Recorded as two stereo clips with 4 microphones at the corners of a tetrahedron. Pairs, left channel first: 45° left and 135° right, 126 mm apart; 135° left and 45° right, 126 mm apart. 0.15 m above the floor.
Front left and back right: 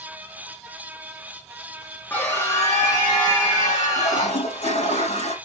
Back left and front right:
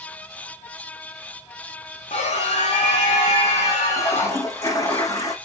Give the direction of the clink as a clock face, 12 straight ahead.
No clink in this recording.